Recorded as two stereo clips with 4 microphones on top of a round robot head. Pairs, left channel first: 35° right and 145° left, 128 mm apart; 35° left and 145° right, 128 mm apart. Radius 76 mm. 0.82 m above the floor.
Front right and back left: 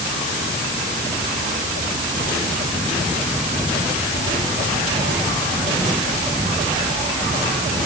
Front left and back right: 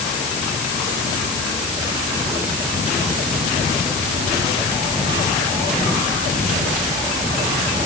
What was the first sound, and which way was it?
Only background noise.